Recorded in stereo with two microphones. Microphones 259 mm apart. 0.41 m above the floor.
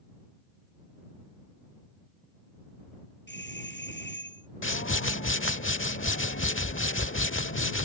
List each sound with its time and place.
3.3 s a doorbell: 45° left (ahead or behind)
4.6 s a whoosh: 50° left (ahead or behind)